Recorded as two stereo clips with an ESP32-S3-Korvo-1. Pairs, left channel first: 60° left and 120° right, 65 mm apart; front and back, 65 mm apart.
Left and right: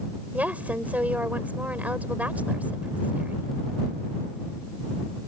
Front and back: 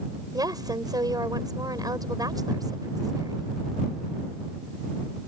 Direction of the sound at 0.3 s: 175° left.